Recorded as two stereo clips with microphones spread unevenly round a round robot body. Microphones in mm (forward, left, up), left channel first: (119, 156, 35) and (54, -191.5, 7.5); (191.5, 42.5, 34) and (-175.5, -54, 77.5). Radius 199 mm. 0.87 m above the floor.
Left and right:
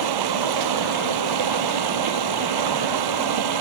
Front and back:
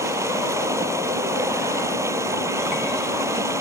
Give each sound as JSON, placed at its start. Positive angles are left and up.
{"t": 0.0, "sound": "running water", "azimuth_deg": -85}